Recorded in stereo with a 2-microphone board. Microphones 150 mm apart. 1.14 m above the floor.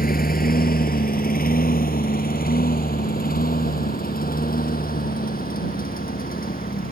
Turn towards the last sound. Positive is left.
turn(degrees=75)  # may be behind; listen again after turning